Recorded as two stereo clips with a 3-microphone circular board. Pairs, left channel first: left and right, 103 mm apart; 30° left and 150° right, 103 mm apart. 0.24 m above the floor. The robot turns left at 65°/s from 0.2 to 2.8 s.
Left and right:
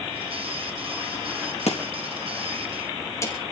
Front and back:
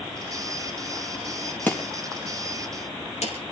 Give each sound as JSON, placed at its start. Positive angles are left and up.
{"t": 1.7, "sound": "chopping", "azimuth_deg": 105, "distance_m": 4.5}